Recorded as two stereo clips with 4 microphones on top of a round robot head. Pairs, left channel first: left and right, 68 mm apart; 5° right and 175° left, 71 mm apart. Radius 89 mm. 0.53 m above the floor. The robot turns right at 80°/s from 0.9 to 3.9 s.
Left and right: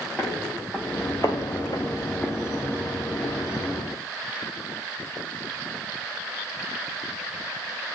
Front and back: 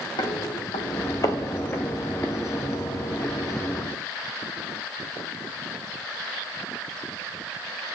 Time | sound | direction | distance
0.2 | footsteps | 10° left | 1.1 m